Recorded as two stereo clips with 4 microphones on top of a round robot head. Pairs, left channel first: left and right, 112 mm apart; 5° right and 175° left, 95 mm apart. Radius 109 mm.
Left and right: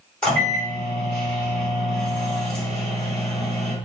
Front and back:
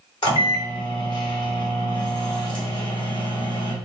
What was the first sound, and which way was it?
A microwave, 10° left.